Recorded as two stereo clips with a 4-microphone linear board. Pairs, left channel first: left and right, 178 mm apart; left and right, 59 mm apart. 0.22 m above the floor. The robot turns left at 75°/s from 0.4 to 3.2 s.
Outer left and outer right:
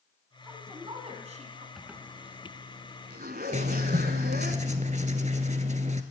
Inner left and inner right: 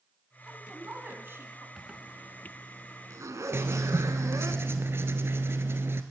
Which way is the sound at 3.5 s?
45° right (ahead or behind).